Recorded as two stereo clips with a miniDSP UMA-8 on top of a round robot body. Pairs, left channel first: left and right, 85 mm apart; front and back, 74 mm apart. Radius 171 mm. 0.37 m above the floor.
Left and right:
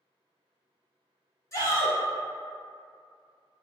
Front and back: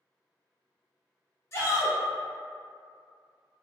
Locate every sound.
1.5 s a shout: 45° left, 1.7 m